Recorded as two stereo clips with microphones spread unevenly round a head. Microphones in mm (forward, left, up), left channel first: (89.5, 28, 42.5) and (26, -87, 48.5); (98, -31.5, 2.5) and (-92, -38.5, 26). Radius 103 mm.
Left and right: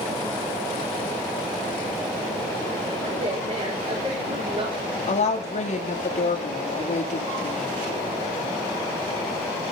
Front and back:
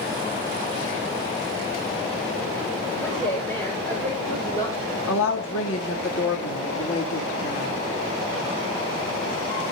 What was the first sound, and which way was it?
A woman speaking, 80° right.